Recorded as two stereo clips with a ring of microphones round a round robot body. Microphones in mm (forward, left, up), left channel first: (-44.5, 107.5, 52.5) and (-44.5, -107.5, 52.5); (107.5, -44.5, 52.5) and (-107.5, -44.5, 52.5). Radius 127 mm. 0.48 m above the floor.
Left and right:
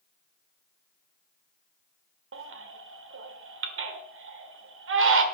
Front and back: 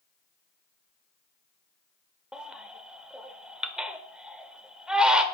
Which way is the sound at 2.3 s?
95° right.